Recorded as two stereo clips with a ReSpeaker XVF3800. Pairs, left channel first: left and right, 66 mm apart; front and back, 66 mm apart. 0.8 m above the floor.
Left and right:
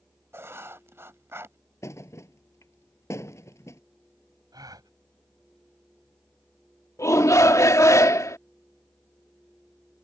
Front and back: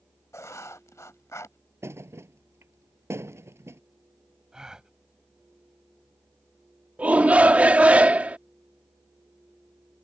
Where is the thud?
130° left.